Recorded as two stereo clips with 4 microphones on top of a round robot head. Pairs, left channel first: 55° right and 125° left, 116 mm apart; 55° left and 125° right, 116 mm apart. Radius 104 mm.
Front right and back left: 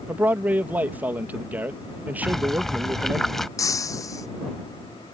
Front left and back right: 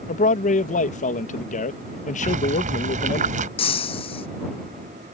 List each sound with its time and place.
0.1 s a man speaking: 50° left
2.2 s boiling: 140° right
3.6 s breaking glass: 10° left